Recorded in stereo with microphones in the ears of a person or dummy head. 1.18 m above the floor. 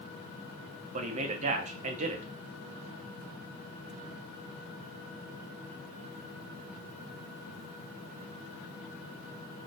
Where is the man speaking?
40° right (ahead or behind), 0.6 m.